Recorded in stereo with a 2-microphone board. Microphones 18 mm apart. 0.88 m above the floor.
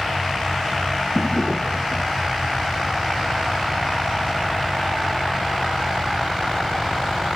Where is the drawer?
90° left.